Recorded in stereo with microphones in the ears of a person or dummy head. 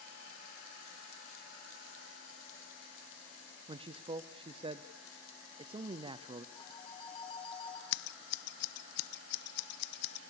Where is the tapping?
No tapping in this recording.